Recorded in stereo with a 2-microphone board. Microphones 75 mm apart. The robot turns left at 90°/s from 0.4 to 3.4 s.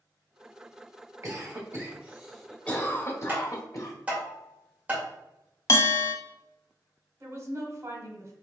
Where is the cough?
45° right (ahead or behind), 1.4 m; by 3.9 s 50° left (ahead or behind), 1.4 m.